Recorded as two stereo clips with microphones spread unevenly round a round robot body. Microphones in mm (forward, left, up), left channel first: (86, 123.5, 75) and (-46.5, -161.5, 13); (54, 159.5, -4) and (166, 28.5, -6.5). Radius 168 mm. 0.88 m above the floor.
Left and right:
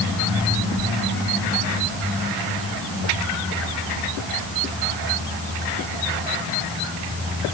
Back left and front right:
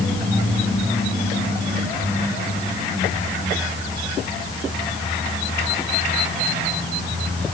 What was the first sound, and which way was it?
Only background noise.